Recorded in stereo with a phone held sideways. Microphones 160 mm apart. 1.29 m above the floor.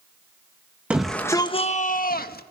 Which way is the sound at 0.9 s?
10° right (ahead or behind).